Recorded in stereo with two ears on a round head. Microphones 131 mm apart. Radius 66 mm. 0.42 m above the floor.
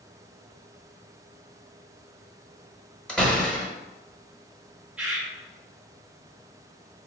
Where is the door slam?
5° left (ahead or behind), 0.9 m.